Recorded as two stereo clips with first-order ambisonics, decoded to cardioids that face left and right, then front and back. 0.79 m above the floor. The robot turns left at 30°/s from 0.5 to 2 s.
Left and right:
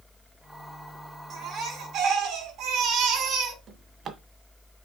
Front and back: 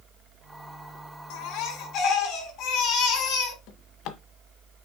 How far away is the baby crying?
About 4.5 m.